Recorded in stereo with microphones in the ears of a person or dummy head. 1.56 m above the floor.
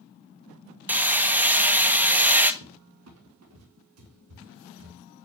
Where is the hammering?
10° right (ahead or behind), 1.5 m.